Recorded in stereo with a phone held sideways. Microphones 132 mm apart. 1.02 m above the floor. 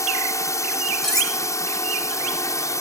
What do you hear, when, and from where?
0.0 s a drone: 20° left (ahead or behind)
1.0 s cutlery clinking: 5° left (ahead or behind)